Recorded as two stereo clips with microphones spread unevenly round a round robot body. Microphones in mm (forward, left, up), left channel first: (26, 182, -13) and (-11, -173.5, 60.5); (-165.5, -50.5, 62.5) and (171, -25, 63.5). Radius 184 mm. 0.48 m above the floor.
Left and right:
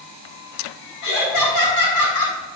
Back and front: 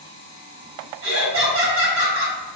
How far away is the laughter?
About 5 m.